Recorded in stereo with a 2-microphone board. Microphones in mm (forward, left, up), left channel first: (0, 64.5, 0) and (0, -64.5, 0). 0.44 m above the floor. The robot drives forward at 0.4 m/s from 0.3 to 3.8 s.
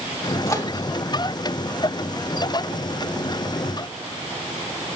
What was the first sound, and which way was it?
A microwave, 25° left (ahead or behind).